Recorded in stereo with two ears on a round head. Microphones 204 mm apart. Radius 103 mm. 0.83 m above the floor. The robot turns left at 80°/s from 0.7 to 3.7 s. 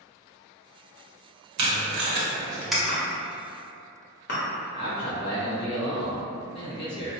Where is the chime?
40° left (ahead or behind), 1.1 m; by 4.4 s 50° left (ahead or behind), 1.1 m.